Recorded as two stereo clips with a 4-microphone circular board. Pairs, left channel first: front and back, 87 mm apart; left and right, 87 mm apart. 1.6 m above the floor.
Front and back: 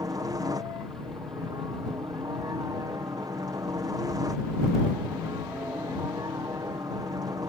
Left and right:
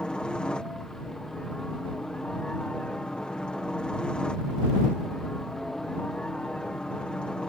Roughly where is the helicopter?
Behind.